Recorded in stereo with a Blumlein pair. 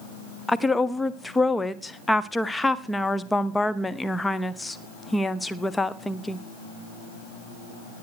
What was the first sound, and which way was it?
A woman speaking, 10° left.